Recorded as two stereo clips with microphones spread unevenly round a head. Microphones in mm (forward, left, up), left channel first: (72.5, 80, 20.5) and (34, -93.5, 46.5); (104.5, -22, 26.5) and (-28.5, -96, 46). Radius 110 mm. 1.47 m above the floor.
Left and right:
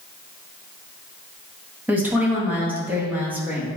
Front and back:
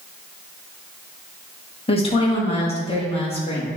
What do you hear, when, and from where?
1.9 s a woman speaking: 20° right, 2 m